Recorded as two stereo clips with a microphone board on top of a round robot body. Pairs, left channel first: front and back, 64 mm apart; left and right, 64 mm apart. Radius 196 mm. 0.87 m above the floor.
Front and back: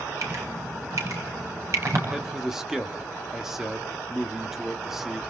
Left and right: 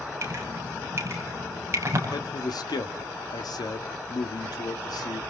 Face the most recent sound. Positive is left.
turn(degrees=95)